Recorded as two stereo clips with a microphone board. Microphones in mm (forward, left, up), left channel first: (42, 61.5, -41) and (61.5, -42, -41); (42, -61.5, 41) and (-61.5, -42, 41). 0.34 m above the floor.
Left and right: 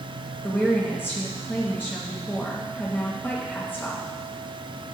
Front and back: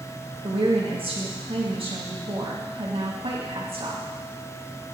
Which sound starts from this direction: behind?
A woman speaking, at 0.4 s.